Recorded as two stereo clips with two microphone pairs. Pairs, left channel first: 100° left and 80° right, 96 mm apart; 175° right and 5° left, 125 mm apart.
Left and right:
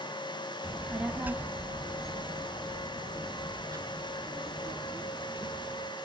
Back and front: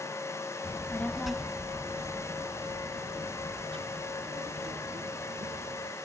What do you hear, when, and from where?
0.6 s a child speaking: 155° right, 0.8 m; by 5.9 s 25° right, 3 m